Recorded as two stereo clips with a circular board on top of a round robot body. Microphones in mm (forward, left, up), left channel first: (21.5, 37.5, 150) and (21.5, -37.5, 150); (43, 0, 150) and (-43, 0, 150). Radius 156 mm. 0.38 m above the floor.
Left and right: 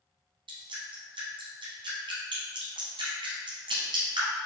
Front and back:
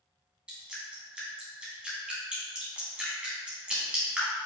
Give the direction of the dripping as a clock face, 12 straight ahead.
3 o'clock.